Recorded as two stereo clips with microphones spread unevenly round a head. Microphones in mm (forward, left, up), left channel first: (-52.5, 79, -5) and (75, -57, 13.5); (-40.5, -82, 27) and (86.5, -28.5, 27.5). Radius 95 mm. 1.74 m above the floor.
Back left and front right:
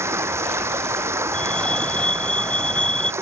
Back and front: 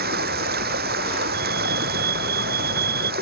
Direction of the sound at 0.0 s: 30° left.